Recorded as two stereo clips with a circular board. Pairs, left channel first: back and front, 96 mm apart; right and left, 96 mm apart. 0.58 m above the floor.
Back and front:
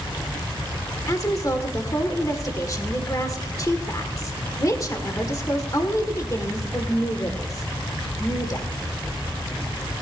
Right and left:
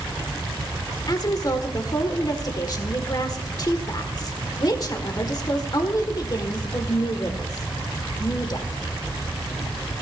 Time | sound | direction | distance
1.1 | a woman speaking | 130° right | 1.4 m